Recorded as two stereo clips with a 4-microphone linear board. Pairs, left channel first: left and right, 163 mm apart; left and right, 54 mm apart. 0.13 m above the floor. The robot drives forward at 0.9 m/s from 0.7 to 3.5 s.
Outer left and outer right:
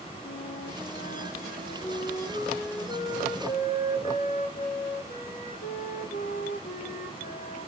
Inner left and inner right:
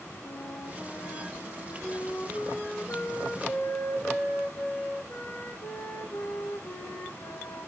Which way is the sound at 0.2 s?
75° left (ahead or behind).